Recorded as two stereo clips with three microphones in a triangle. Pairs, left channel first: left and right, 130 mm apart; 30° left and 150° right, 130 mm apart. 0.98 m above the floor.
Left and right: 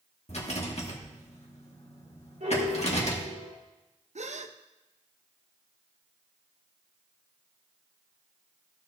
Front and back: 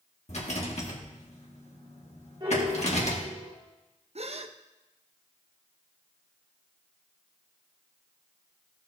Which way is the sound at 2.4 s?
95° right.